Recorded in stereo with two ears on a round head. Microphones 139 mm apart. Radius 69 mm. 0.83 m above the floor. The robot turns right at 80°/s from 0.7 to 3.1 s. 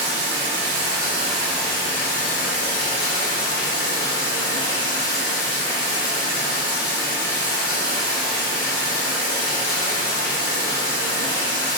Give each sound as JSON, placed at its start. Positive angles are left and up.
{"t": 0.0, "sound": "running water", "azimuth_deg": -50, "distance_m": 0.9}